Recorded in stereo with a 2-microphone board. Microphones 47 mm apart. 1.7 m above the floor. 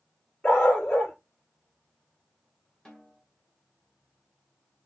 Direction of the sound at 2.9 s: 20° left (ahead or behind).